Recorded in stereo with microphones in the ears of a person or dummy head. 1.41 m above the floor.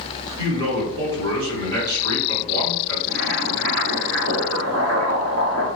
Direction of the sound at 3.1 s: 50° right (ahead or behind).